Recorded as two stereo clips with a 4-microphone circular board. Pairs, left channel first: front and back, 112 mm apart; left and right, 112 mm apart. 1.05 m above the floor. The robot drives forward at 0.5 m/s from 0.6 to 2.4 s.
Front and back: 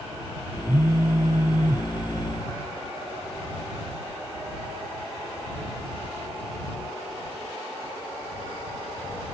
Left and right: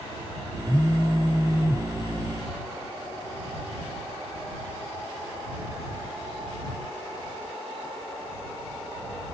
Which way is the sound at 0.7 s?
170° left.